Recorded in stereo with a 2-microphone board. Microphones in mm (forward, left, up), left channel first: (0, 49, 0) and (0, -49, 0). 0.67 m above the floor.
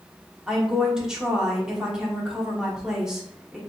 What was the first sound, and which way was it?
A woman speaking, 5° right (ahead or behind).